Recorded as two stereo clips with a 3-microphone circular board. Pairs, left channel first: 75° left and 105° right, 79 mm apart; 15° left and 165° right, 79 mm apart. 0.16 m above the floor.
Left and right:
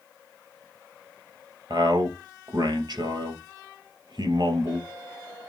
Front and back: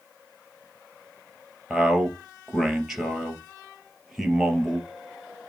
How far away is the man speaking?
About 3 m.